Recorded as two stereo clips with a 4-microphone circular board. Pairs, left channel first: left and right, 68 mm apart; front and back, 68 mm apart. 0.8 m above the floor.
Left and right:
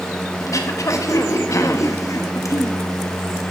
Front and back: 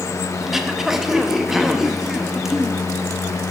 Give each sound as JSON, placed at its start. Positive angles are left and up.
{"t": 0.4, "sound": "throat clearing", "azimuth_deg": 95, "distance_m": 0.8}